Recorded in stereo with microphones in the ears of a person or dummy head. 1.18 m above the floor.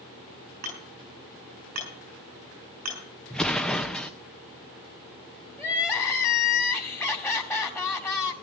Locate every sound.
0.6 s hammering: 45° right (ahead or behind), 6 m
3.3 s an explosion: 5° left (ahead or behind), 0.5 m
5.6 s crying: 15° left (ahead or behind), 1.9 m